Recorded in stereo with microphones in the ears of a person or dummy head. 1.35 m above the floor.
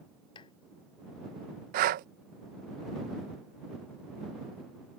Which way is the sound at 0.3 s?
25° left (ahead or behind).